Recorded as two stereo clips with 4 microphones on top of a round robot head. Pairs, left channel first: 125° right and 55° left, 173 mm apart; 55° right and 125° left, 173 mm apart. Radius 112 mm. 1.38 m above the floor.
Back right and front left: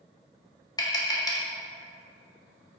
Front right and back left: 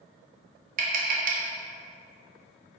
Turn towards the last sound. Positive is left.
turn(degrees=165)